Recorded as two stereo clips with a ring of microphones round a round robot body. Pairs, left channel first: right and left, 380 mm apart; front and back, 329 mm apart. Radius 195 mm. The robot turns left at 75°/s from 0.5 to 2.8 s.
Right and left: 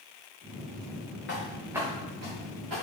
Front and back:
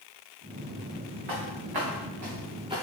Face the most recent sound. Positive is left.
turn(degrees=100)